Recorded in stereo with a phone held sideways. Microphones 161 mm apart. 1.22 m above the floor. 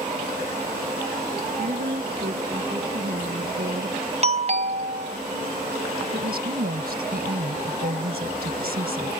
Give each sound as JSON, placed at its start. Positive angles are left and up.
{"t": 1.6, "sound": "a woman speaking", "side_deg": -65}
{"t": 4.2, "sound": "a doorbell", "side_deg": -40}
{"t": 6.1, "sound": "a woman speaking", "side_deg": -70}